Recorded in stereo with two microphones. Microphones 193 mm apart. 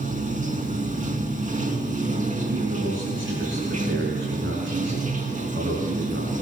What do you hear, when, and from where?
0.0 s running water: 40° right (ahead or behind), 3 m
2.5 s a man speaking: 85° right, 6.5 m